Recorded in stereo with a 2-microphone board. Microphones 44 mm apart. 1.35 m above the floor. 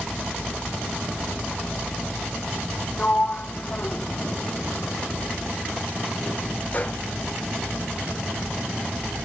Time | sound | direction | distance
3.0 | a sliding door | 40° left (ahead or behind) | 0.6 m